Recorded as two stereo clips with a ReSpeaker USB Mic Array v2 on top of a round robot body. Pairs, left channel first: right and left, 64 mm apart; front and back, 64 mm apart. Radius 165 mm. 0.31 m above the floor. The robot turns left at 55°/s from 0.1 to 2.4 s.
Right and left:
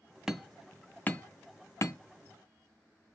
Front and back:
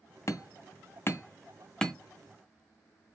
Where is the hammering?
10° left, 0.7 m; by 1.9 s 80° right, 0.7 m.